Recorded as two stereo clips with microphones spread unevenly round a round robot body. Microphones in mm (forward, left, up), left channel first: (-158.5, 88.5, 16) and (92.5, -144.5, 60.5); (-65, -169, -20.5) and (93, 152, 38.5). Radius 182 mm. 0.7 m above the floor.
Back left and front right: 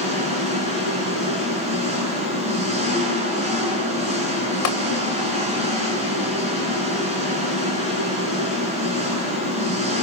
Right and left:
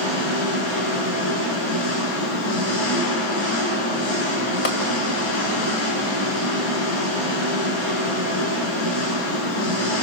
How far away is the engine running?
About 6 m.